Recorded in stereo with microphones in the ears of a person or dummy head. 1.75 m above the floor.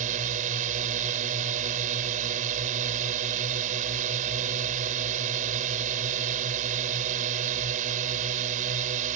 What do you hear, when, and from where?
0.0 s a drone: 40° right (ahead or behind)